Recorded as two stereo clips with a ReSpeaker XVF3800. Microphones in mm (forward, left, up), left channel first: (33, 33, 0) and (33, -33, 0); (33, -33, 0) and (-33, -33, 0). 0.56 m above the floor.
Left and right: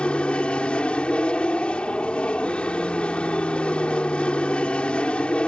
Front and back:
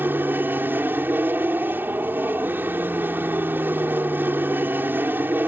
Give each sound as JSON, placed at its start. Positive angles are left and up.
{"t": 0.0, "sound": "an aircraft", "azimuth_deg": 150}